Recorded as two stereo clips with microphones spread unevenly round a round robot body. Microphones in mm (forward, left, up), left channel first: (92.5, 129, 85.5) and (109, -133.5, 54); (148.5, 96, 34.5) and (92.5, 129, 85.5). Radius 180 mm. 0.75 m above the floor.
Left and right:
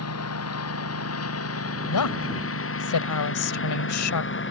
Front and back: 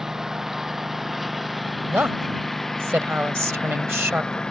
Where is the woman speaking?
90° left.